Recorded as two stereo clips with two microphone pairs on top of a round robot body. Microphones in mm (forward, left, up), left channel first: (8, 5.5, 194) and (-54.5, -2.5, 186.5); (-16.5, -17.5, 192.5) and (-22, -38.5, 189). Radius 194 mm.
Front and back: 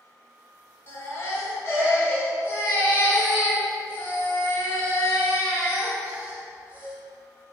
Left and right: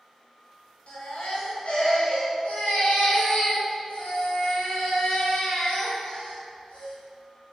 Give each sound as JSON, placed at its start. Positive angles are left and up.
{"t": 0.9, "sound": "a baby crying", "azimuth_deg": 60, "distance_m": 5.0}